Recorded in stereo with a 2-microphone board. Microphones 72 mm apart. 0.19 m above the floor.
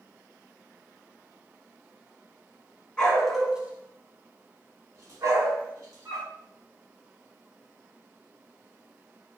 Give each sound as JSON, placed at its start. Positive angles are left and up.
{"t": 3.0, "sound": "a dog barking", "side_deg": 10, "distance_m": 0.7}